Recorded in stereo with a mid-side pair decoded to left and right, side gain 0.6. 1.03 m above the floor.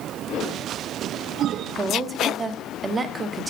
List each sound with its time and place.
1.7 s a woman speaking: 25° right, 0.9 m